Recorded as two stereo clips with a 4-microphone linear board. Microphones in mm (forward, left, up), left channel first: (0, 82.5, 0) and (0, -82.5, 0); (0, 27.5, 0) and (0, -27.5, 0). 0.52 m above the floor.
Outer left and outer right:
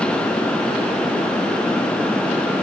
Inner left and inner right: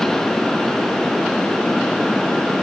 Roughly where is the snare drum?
I don't hear a snare drum.